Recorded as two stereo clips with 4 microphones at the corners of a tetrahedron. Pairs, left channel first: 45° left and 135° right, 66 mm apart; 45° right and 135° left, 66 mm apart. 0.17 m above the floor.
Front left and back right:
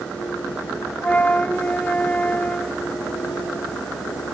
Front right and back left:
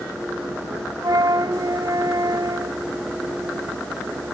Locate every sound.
1.0 s a flute: 115° left